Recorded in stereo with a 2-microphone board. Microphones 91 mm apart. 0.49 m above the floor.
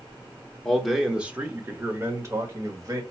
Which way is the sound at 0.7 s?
5° left (ahead or behind).